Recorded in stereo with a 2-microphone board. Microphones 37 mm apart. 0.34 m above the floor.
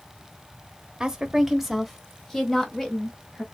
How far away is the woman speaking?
About 1.0 m.